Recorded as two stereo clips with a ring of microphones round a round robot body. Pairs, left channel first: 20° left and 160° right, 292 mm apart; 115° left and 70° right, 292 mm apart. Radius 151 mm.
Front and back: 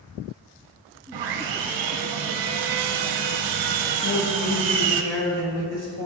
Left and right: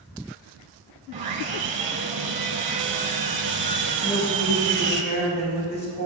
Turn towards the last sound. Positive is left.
turn(degrees=60)